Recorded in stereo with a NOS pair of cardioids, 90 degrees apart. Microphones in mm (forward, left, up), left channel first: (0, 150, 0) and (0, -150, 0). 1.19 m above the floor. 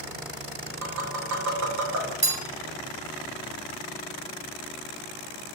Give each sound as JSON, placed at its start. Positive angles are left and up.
{"t": 0.8, "sound": "tapping", "azimuth_deg": -65, "distance_m": 2.0}
{"t": 2.2, "sound": "a bell", "azimuth_deg": -20, "distance_m": 1.5}